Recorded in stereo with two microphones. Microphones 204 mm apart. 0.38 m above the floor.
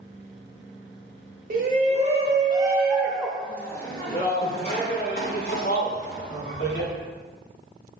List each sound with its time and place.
1.5 s a shout: 40° right (ahead or behind), 1.4 m; by 6.9 s 60° left (ahead or behind), 2.5 m